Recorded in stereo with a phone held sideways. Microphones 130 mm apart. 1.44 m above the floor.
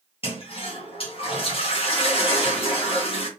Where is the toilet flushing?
45° left (ahead or behind), 1.7 m.